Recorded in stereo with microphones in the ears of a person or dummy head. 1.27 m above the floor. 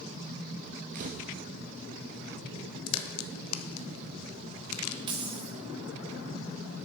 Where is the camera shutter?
35° right (ahead or behind), 0.7 m.